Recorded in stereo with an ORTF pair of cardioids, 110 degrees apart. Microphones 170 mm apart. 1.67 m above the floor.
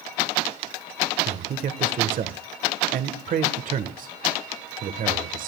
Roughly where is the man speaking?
Ahead right.